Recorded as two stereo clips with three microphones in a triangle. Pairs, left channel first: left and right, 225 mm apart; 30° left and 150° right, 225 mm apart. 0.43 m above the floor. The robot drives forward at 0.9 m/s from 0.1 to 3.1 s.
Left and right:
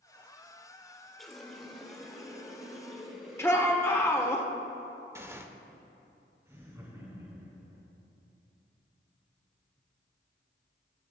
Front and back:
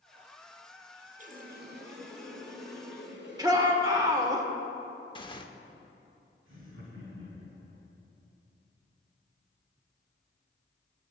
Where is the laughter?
170° right, 4 m.